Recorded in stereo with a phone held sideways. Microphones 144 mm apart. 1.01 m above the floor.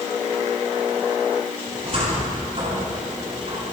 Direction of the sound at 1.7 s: 45° right (ahead or behind).